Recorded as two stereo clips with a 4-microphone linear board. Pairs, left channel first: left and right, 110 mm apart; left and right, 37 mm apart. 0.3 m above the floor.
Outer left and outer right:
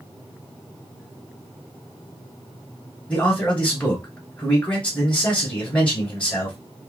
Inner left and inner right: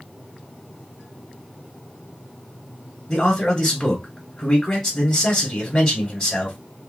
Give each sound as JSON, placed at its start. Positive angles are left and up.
{"t": 3.1, "sound": "a man speaking", "side_deg": 10, "distance_m": 1.3}